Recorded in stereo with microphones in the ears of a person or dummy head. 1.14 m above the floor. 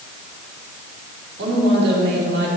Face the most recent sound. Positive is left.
turn(degrees=-65)  # may be behind; listen again after turning